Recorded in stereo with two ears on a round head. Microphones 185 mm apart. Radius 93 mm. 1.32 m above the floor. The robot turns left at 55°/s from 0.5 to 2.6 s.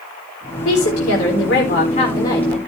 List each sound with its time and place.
0.7 s a woman speaking: 105° left, 4 m; by 2.6 s straight ahead, 4 m